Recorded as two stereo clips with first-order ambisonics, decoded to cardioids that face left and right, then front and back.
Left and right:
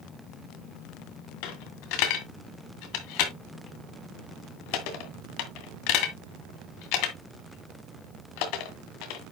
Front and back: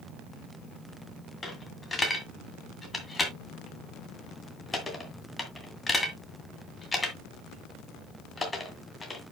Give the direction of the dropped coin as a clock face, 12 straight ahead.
9 o'clock.